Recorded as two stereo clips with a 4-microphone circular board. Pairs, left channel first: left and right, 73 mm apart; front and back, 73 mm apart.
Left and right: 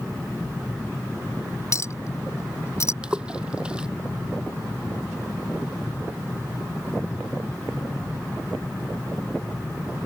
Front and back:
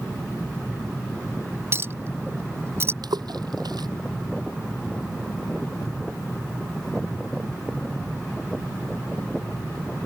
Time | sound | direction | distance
1.7 | a clink | 130° left | ?
3.0 | a splash | 165° right | ?